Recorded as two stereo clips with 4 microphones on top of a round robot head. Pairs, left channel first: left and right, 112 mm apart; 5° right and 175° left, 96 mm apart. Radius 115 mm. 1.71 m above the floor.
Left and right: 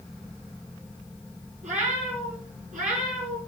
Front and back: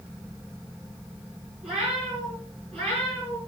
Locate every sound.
1.6 s a cat meowing: 100° right, 6.5 m; by 3.4 s 80° right, 6 m